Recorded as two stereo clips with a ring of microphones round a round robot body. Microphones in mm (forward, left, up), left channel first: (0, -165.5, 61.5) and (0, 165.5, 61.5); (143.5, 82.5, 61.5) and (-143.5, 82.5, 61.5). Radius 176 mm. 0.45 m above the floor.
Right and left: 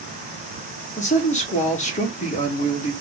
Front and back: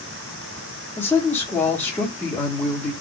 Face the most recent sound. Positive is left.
turn(degrees=-70)